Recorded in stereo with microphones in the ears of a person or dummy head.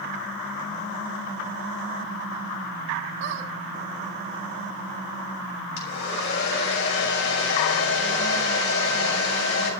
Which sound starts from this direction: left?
A hair dryer, at 5.8 s.